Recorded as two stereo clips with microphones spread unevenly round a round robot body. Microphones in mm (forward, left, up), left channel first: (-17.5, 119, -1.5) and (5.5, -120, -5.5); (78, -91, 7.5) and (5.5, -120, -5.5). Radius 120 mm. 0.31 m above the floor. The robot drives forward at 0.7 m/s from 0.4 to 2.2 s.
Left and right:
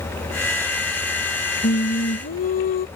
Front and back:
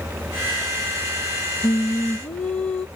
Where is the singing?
70° left; by 2.9 s 90° left.